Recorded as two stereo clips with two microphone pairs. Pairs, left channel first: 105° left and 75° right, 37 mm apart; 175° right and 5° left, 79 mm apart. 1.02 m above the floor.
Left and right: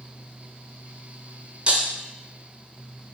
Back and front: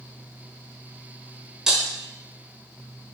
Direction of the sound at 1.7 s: 70° right.